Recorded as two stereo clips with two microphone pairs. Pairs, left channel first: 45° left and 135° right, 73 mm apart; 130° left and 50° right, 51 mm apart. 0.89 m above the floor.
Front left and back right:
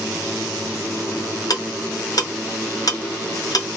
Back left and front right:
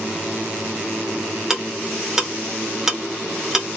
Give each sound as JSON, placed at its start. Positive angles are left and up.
{"t": 1.5, "sound": "ticking", "azimuth_deg": 25, "distance_m": 0.8}